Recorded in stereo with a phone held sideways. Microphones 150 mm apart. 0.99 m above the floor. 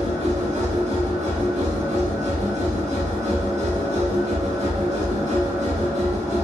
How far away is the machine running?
About 0.9 m.